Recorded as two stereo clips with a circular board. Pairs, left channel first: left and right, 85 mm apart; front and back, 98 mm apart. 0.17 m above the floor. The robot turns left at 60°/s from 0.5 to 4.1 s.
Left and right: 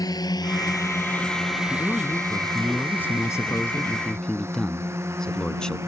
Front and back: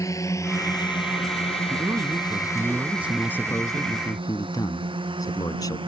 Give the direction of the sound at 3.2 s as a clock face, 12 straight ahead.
10 o'clock.